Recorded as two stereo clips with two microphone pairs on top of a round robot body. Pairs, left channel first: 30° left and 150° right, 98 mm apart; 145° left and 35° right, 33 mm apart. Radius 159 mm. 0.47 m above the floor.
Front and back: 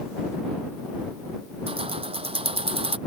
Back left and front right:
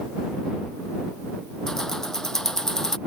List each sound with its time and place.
1.7 s keys jangling: 140° right